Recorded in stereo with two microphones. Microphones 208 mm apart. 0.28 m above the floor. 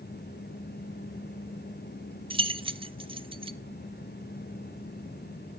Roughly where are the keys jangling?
Right.